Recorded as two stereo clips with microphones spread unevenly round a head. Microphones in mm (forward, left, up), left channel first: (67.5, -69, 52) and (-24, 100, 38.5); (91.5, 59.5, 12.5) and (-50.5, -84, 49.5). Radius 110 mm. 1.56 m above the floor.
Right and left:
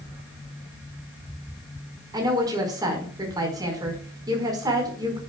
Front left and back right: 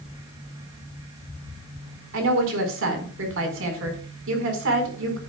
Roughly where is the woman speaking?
Behind.